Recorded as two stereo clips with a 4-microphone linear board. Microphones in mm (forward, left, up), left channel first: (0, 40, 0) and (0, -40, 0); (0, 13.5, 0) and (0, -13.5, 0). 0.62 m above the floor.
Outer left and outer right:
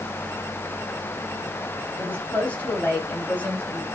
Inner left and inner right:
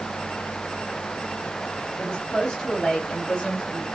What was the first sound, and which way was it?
A woman speaking, 20° left (ahead or behind).